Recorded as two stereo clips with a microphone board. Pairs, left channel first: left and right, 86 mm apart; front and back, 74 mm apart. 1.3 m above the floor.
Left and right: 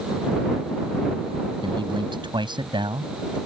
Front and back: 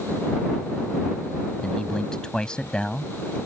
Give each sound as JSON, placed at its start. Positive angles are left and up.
{"t": 1.6, "sound": "a man speaking", "azimuth_deg": -80}